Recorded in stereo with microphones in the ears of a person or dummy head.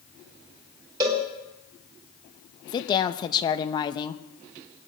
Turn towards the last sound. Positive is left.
turn(degrees=20)  # may be behind; listen again after turning